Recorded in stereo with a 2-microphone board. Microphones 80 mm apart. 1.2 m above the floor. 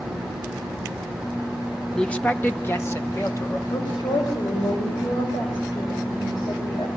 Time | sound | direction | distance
1.9 | a man speaking | 10° left (ahead or behind) | 1.1 m
3.7 | a woman speaking | 75° left (ahead or behind) | 5.5 m